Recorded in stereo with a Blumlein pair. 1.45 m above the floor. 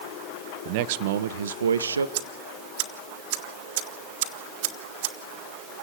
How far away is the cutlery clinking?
I don't hear cutlery clinking.